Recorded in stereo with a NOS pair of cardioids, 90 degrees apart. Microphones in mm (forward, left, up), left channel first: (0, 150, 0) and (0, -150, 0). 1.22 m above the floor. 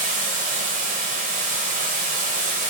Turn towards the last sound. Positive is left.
turn(degrees=-25)